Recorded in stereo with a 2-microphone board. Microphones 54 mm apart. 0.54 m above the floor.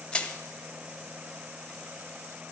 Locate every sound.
0.1 s crushing: 20° left (ahead or behind), 1.0 m